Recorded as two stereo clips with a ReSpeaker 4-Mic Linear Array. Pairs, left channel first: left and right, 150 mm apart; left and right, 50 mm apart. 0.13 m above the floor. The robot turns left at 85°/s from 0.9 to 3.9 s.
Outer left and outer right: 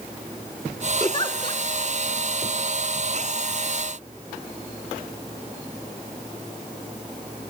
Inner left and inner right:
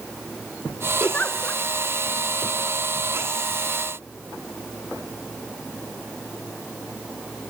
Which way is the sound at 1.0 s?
135° left.